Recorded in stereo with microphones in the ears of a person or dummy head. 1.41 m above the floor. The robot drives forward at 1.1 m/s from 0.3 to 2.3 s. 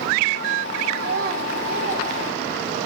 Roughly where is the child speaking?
Right.